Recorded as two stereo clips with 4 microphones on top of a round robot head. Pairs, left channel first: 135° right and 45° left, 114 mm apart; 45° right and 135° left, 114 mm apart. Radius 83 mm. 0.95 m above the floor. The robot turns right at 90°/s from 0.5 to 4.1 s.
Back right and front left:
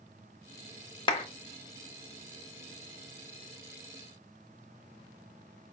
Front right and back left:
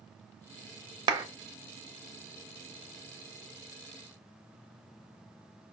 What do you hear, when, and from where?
1.1 s a clap: straight behind, 0.5 m; by 1.2 s 165° right, 0.5 m